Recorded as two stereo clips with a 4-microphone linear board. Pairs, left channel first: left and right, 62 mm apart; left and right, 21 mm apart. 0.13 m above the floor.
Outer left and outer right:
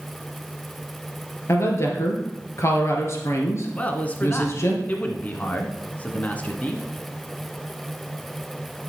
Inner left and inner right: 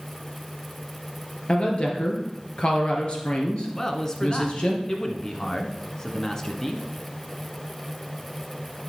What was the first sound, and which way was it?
A woman speaking, 50° left (ahead or behind).